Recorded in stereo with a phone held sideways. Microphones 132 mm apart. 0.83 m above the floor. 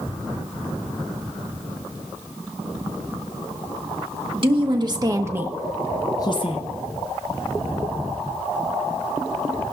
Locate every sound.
4.3 s a woman speaking: 40° right (ahead or behind), 1.5 m; by 6.6 s 50° left (ahead or behind), 0.8 m